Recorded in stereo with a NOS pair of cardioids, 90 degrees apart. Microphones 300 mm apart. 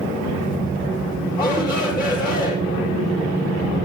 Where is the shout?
35° left, 5.5 m.